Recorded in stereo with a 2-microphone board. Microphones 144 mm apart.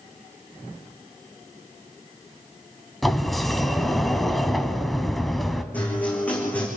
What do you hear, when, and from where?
3.0 s a sliding door: centre (ahead or behind), 1.4 m
5.7 s a guitar: 10° left (ahead or behind), 6 m